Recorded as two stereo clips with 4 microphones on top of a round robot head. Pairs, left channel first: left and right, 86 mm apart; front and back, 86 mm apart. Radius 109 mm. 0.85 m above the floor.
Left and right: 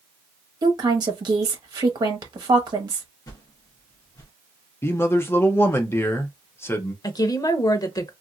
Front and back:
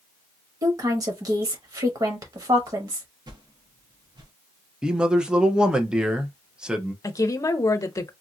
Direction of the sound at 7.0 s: 50° left.